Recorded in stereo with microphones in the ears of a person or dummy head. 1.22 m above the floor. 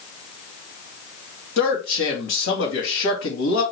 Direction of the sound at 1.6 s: 70° left (ahead or behind).